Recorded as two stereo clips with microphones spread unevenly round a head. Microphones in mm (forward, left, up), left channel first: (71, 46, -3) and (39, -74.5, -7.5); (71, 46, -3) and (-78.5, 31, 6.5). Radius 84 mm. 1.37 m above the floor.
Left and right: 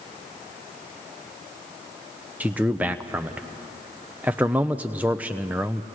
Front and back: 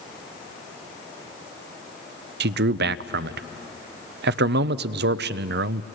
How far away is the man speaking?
About 0.5 m.